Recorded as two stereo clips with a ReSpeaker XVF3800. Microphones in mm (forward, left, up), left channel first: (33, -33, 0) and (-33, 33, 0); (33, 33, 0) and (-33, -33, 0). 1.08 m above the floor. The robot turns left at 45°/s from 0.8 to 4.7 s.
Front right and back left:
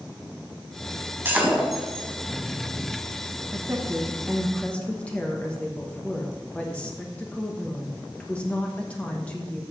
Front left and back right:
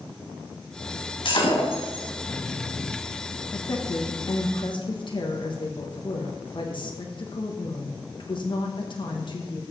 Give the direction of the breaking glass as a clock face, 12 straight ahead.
10 o'clock.